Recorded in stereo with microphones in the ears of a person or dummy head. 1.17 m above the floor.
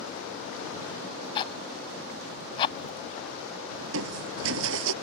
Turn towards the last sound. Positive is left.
turn(degrees=-75)  # may be behind; listen again after turning